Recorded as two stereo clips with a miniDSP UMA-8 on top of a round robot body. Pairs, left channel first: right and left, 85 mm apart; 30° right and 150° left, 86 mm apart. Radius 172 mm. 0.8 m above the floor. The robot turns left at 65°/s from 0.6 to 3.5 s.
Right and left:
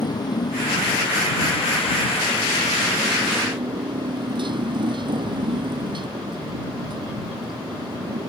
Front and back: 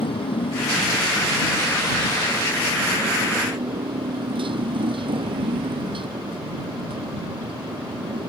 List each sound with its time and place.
0.0 s a motorcycle: 45° right; by 8.3 s 125° left